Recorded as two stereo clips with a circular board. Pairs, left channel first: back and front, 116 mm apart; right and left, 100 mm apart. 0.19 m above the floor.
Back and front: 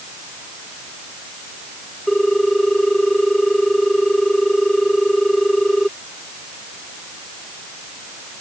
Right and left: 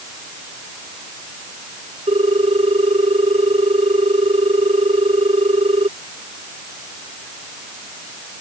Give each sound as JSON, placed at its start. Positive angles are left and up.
{"t": 2.1, "sound": "a ringtone", "azimuth_deg": 90}